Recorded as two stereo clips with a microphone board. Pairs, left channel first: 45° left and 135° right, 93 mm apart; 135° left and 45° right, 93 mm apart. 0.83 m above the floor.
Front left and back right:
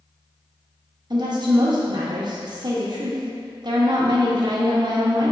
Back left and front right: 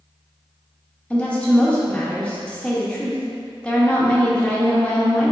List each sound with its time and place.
1.1 s a woman speaking: 150° right, 1.0 m